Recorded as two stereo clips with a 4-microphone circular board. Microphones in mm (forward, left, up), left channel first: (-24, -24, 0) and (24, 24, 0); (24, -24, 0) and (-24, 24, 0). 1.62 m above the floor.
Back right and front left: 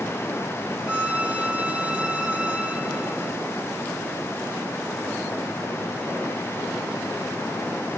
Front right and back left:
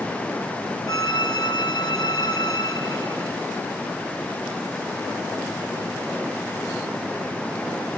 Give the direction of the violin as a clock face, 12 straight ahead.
1 o'clock.